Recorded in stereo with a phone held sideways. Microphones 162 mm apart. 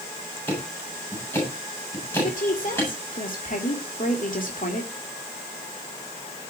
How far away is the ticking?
About 8.5 m.